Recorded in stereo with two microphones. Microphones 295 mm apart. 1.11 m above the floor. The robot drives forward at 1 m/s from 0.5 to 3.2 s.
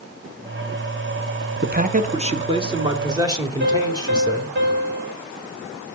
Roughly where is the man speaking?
Right.